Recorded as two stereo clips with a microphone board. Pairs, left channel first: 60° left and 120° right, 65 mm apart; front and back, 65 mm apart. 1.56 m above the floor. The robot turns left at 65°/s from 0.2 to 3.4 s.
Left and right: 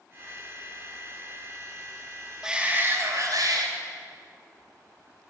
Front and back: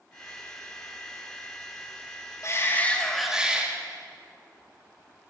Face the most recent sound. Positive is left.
turn(degrees=-100)